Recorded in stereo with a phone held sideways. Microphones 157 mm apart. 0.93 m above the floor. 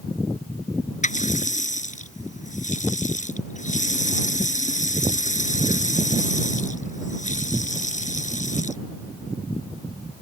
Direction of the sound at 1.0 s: 50° left (ahead or behind).